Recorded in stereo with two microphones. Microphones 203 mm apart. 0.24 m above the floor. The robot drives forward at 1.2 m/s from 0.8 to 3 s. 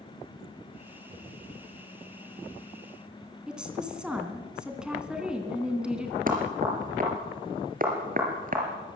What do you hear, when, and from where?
3.5 s a woman speaking: 5° right (ahead or behind), 3 m
6.3 s knocking: 45° right (ahead or behind), 4 m